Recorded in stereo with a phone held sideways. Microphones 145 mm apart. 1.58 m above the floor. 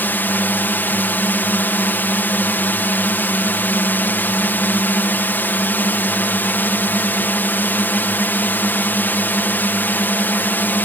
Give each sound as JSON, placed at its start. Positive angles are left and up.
{"t": 0.0, "sound": "a drone", "side_deg": 15}